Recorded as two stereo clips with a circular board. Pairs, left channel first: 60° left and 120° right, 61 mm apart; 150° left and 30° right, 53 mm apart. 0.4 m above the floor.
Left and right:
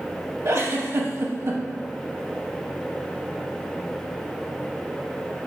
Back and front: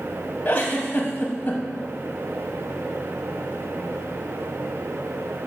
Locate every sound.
0.5 s a giggle: 160° right, 0.5 m